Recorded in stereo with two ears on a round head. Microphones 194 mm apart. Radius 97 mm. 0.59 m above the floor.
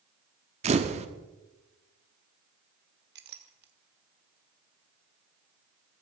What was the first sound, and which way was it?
A camera shutter, 30° right (ahead or behind).